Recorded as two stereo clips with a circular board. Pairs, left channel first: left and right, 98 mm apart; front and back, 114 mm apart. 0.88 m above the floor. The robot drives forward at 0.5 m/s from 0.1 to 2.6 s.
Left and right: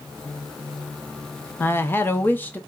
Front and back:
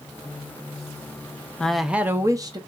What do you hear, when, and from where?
1.6 s a woman speaking: 65° left, 0.6 m; by 2.6 s 155° left, 0.7 m